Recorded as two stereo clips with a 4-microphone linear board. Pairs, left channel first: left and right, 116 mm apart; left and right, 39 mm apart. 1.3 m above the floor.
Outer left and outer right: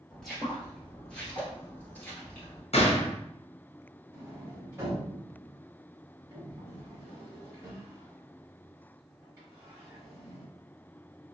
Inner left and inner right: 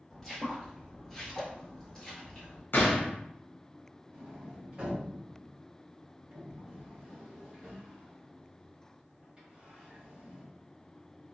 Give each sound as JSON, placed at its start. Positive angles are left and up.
{"t": 0.1, "sound": "footsteps", "side_deg": 0, "distance_m": 1.5}
{"t": 2.7, "sound": "a gunshot", "side_deg": 65, "distance_m": 0.7}
{"t": 4.1, "sound": "a sliding door", "side_deg": -25, "distance_m": 1.2}